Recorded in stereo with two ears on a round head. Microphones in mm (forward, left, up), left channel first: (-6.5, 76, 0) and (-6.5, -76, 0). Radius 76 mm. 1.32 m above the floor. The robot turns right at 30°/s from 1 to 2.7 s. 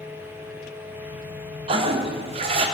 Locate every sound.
1.7 s a toilet flushing: 35° right (ahead or behind), 0.6 m